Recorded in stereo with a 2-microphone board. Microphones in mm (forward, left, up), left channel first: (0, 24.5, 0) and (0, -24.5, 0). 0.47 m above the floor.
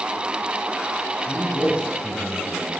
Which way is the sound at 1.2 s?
25° left (ahead or behind).